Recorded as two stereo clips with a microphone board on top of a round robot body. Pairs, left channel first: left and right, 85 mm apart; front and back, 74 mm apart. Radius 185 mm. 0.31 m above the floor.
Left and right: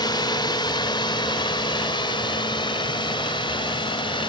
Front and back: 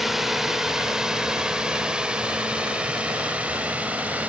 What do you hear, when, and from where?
0.0 s a drone: 95° left; by 4.3 s 110° left